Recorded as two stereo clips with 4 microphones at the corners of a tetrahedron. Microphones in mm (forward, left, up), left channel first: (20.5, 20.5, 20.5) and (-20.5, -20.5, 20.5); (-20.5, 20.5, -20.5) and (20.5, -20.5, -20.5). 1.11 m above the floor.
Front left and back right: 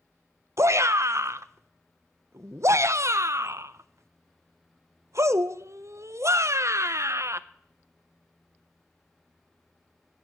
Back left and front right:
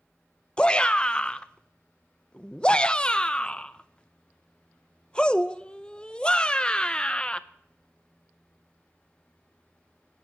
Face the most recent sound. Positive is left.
turn(degrees=-155)